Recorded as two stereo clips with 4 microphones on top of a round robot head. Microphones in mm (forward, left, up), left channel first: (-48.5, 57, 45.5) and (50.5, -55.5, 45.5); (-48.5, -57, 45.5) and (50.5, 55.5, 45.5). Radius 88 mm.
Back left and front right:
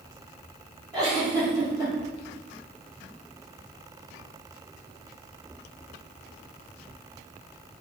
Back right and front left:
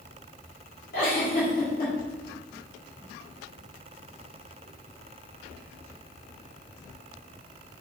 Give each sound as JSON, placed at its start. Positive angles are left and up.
{"t": 0.9, "sound": "a giggle", "azimuth_deg": -110, "distance_m": 1.3}